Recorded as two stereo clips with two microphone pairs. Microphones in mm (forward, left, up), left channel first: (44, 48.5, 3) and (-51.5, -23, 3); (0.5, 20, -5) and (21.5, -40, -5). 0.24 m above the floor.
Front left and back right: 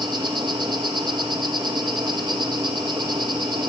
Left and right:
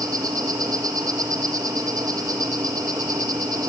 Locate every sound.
0.0 s an insect: 90° right, 6 m